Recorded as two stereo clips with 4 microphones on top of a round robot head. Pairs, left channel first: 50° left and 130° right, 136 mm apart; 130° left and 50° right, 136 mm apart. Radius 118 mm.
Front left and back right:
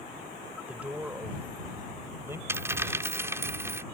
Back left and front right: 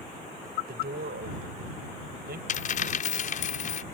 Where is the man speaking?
45° right; by 2.4 s 55° right.